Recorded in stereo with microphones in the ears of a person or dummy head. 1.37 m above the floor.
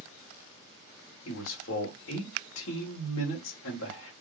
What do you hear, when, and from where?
1.2 s a man speaking: 75° left (ahead or behind), 1.5 m